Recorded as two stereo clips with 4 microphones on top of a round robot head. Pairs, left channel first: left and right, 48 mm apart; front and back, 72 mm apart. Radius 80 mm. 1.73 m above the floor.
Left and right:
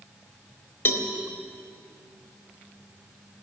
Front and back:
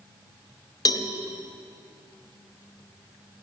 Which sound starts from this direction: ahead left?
A cowbell, at 0.8 s.